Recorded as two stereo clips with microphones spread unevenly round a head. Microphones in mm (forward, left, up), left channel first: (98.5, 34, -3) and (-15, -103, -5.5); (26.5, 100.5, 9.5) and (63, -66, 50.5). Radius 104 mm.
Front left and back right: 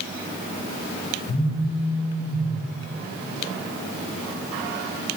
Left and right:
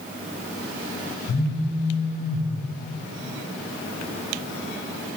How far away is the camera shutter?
I don't hear a camera shutter.